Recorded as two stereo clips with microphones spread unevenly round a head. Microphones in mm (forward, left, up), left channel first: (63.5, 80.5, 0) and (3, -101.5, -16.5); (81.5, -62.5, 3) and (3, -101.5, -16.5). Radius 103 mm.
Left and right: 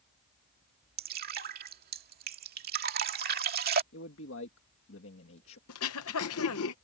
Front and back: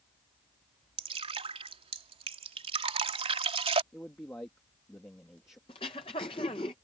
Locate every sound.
1.0 s dripping: 155° right
3.9 s a man speaking: 105° left
5.7 s throat clearing: 75° left